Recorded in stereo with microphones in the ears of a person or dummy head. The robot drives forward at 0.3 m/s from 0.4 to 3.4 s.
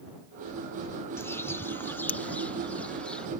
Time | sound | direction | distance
1.2 | a bird | 10° left (ahead or behind) | ?